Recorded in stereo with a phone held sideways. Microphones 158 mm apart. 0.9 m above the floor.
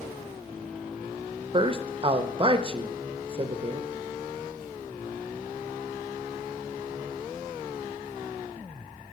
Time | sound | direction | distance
1.5 | a man speaking | 35° right (ahead or behind) | 0.6 m